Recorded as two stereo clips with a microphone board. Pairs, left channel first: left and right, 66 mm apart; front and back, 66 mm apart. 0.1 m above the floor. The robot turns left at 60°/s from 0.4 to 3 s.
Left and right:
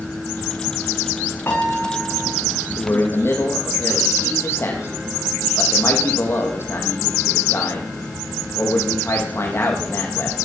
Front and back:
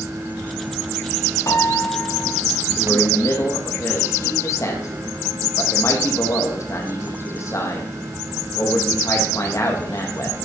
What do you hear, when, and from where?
1.5 s a piano: 35° left, 4.5 m; by 2.4 s 20° right, 4.5 m
2.8 s a man speaking: 55° left, 5 m; by 10.4 s 40° left, 5 m